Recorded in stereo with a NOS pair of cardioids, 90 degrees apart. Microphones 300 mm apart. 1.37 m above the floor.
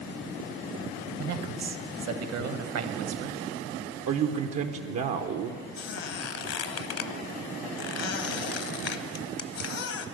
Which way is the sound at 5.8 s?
55° left.